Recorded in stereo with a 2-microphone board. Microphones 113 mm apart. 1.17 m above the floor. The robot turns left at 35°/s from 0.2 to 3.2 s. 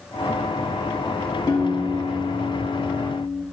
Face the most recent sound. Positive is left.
turn(degrees=75)